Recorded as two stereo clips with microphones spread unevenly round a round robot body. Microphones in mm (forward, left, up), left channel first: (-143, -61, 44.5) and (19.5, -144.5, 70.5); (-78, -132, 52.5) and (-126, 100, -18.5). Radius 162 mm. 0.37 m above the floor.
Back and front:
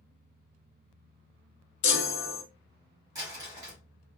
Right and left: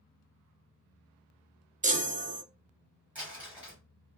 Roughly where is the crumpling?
Ahead left.